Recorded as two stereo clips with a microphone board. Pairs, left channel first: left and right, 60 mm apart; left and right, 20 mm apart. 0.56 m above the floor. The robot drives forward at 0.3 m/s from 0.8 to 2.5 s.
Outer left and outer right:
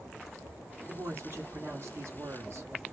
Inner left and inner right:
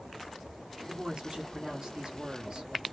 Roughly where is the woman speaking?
Right.